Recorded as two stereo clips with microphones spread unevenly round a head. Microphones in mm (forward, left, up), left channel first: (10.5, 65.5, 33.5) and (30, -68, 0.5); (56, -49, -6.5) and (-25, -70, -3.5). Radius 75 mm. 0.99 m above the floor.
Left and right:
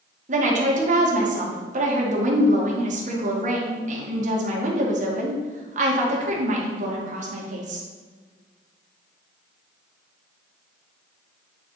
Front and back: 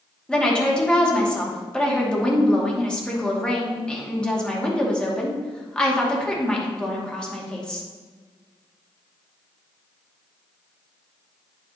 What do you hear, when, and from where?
0.3 s a woman speaking: 65° right, 2.5 m